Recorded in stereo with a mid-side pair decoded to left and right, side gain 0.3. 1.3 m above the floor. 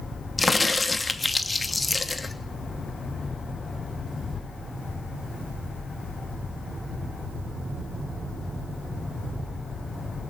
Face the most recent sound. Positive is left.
turn(degrees=30)